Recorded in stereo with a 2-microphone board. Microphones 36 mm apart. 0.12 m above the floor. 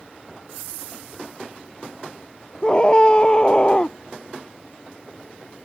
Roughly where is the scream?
Left.